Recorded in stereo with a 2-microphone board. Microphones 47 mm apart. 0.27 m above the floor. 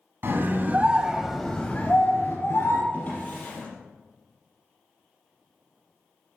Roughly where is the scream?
Right.